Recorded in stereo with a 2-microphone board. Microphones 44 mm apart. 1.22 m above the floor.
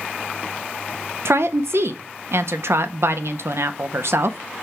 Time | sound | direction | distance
1.2 | a woman speaking | 70° right (ahead or behind) | 0.6 m